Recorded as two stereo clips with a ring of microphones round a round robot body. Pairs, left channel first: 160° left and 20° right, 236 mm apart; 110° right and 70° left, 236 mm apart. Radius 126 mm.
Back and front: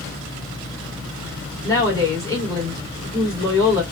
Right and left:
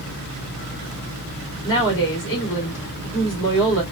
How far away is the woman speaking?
About 2 m.